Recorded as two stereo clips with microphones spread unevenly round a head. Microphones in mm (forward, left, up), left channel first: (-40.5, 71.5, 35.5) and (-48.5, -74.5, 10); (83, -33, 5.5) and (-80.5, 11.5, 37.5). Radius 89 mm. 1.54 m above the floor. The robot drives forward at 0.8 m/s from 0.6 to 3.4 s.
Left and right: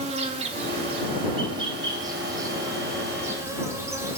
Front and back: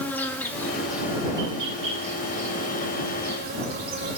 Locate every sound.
0.0 s an insect: 105° right, 1.1 m; by 4.2 s 170° right, 2.5 m